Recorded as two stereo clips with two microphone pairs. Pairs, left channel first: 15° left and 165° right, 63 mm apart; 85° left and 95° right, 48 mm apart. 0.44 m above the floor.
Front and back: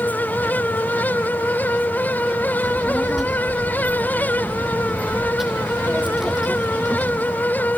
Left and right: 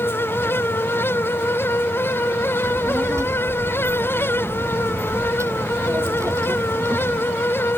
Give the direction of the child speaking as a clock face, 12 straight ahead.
3 o'clock.